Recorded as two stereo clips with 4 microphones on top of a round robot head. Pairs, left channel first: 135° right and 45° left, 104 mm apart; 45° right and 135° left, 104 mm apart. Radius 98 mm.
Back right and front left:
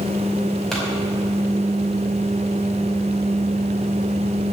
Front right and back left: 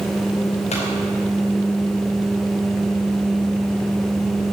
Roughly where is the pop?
Ahead right.